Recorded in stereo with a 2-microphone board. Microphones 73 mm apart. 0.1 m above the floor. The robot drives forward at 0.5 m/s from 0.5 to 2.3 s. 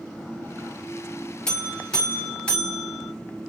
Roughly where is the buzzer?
Centre.